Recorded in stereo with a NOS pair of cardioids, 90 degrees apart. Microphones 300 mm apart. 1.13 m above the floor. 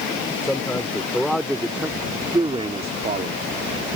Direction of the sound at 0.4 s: 10° left.